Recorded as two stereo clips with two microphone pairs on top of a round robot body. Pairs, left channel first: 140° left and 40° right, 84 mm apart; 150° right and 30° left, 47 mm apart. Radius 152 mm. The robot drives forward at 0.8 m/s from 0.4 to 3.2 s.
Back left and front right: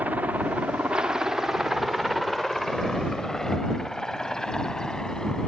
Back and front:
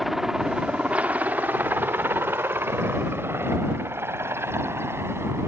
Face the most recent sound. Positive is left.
turn(degrees=55)